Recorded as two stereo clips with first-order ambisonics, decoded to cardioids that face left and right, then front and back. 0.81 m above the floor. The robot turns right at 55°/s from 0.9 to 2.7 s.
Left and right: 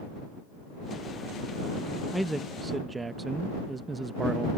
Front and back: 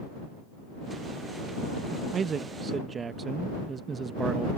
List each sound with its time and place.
2.1 s a man speaking: straight behind; by 4.5 s 145° right